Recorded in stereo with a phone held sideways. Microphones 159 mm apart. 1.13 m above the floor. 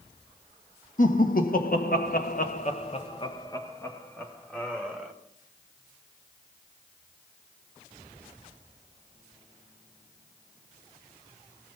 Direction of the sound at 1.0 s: 55° left (ahead or behind).